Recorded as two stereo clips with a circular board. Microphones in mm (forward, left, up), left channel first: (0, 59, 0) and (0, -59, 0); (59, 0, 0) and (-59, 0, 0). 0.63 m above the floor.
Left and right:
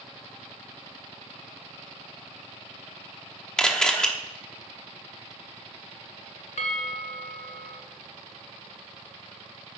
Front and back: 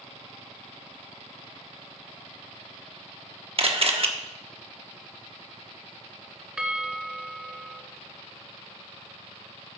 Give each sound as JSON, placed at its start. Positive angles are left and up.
{"t": 3.6, "sound": "a camera shutter", "azimuth_deg": 170, "distance_m": 1.2}
{"t": 6.6, "sound": "a bell", "azimuth_deg": 95, "distance_m": 1.2}